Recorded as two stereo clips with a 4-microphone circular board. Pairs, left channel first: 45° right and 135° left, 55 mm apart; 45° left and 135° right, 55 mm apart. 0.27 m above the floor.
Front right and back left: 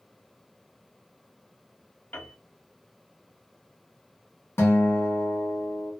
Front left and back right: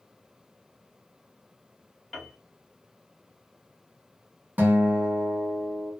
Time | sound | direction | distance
2.1 | a piano | 40° right | 1.3 m
4.6 | a guitar | 80° right | 1.3 m